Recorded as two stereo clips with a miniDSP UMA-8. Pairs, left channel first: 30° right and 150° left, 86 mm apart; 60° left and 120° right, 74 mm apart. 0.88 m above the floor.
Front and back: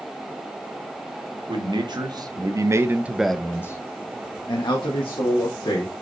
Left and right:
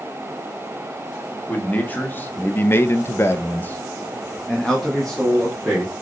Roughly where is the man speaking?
Behind left.